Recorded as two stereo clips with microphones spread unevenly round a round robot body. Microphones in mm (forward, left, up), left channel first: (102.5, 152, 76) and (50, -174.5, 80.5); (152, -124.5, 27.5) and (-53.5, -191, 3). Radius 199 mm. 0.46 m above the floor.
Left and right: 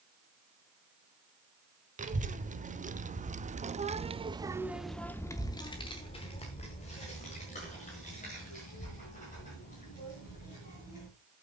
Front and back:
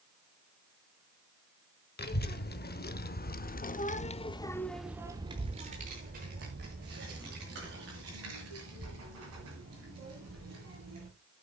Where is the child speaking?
30° right, 1.6 m; by 11.1 s 150° left, 3.5 m.